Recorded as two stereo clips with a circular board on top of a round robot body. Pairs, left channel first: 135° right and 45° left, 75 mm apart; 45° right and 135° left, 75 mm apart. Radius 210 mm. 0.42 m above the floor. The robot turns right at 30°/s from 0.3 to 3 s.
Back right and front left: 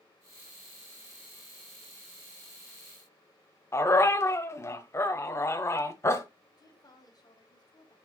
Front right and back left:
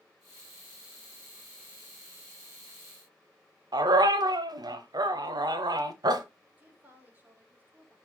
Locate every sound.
3.7 s a dog barking: 170° left, 0.9 m
6.6 s a woman speaking: 160° right, 3.5 m